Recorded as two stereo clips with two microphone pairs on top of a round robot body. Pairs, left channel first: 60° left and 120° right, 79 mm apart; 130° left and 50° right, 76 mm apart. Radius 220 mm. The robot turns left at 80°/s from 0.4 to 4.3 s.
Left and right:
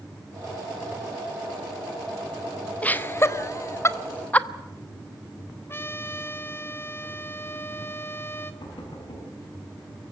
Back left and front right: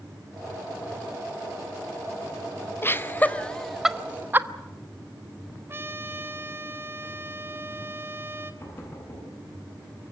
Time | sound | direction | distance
2.8 | laughter | 120° left | 1.4 m
5.7 | a trumpet | 5° left | 1.6 m
8.6 | knocking | 70° left | 6.5 m